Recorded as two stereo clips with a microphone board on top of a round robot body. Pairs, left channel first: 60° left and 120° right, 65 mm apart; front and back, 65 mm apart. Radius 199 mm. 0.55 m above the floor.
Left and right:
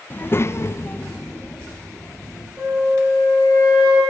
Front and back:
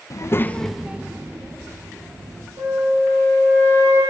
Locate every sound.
0.1 s a child speaking: 5° left, 1.1 m; by 2.5 s 135° left, 3 m
2.6 s a flute: straight behind, 9.5 m